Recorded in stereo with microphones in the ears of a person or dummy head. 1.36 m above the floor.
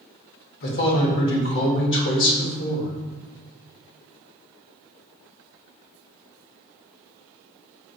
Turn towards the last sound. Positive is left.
turn(degrees=60)  # may be behind; listen again after turning